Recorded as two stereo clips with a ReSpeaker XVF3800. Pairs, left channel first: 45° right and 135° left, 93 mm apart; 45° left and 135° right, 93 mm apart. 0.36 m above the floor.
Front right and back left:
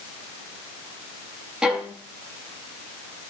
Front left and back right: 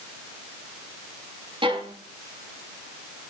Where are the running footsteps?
No running footsteps in this recording.